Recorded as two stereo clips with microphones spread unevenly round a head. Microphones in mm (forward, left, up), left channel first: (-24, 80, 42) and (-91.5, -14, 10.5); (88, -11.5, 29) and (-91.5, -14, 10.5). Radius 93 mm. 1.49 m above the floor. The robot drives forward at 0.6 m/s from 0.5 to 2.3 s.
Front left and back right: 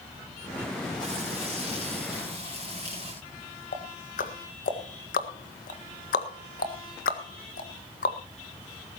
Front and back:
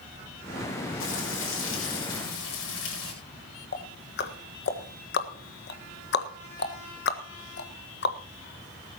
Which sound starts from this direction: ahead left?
Ticking, at 3.7 s.